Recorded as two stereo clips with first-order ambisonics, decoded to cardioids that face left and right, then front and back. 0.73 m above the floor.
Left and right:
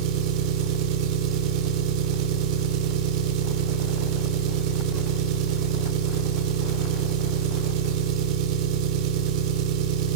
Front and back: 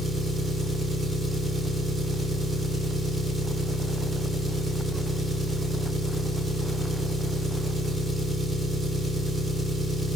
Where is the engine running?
105° right, 1.7 m.